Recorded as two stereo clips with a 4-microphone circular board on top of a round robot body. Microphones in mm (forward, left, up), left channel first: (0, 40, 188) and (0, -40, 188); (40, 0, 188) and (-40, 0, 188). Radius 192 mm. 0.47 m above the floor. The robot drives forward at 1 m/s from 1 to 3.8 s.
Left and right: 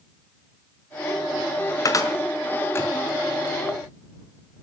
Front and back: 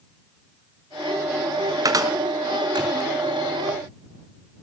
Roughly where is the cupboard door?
Behind left.